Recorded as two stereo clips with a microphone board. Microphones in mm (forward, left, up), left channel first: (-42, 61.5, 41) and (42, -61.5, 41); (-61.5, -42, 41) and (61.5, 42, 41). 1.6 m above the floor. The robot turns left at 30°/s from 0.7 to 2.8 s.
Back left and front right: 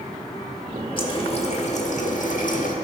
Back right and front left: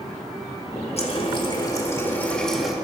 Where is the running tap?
175° left, 1.9 m; by 2.7 s 120° left, 1.9 m.